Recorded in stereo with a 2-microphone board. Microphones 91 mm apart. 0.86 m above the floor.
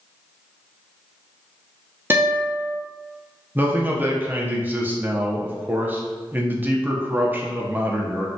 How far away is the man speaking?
About 0.5 m.